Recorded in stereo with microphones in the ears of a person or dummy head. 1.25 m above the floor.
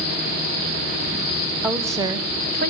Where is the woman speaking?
5° right (ahead or behind), 1.1 m; by 2.7 s 45° right (ahead or behind), 0.9 m.